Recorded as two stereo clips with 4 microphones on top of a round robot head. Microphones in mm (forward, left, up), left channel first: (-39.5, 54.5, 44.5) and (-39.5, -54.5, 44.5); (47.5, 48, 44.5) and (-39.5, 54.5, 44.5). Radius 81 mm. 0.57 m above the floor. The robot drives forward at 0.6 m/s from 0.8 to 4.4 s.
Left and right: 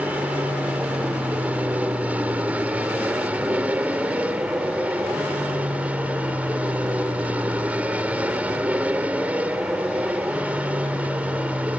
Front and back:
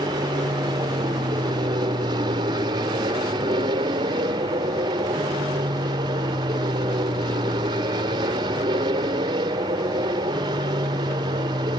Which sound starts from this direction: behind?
An aircraft, at 0.0 s.